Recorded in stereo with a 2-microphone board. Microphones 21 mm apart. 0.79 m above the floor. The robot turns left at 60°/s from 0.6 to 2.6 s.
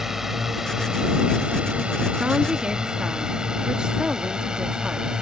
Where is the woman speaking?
60° right (ahead or behind); by 5.1 s 45° right (ahead or behind).